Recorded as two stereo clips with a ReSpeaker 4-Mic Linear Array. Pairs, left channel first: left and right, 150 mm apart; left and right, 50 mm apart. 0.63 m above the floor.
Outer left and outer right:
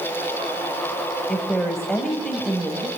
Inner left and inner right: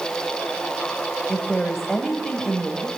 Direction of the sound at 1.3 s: 5° left (ahead or behind).